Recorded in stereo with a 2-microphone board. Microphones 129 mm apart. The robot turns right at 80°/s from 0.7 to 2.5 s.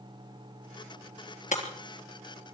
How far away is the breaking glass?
About 3.5 m.